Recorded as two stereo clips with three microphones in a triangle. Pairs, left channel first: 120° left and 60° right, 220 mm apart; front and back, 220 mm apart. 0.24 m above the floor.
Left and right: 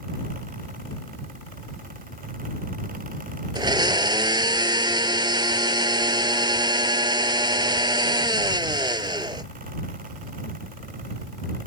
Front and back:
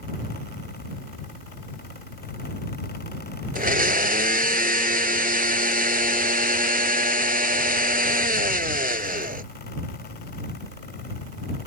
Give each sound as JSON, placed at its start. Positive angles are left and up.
{"t": 3.5, "sound": "a blender", "azimuth_deg": -130}